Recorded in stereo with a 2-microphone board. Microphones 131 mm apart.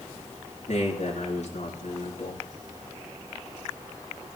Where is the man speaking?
65° left (ahead or behind), 6.5 m.